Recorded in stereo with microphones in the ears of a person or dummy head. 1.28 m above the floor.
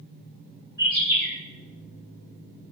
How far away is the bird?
About 1.7 m.